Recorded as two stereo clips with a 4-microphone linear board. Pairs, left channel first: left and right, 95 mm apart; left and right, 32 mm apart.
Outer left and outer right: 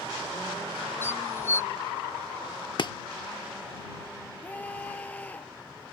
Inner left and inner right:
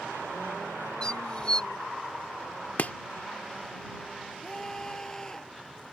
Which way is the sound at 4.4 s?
15° left (ahead or behind).